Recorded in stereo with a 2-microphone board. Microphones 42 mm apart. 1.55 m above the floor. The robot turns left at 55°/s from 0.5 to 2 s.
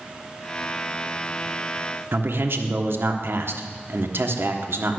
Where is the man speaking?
65° right (ahead or behind), 1.2 m.